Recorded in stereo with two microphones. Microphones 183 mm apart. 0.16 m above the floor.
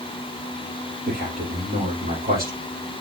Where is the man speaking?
55° right (ahead or behind), 5 m.